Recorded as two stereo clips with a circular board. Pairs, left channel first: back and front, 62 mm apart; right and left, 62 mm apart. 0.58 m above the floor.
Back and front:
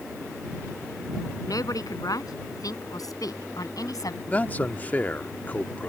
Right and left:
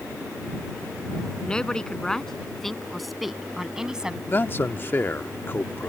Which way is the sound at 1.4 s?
165° right.